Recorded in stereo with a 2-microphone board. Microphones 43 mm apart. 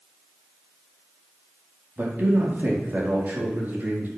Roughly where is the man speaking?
Right.